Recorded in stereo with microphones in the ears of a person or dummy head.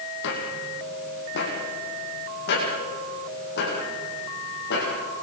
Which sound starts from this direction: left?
Footsteps, at 0.2 s.